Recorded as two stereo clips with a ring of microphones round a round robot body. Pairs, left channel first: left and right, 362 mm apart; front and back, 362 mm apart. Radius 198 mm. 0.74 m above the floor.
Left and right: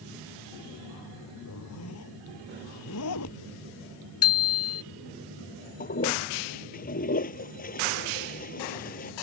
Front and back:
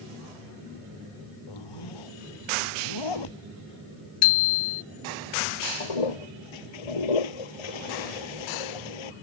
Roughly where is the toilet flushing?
Ahead.